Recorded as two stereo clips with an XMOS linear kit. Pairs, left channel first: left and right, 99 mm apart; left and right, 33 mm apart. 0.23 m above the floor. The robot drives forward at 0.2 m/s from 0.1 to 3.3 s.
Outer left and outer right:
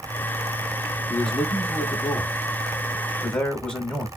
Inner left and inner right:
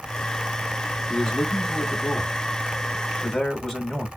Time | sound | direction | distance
1.1 | a man speaking | 10° left (ahead or behind) | 1.1 m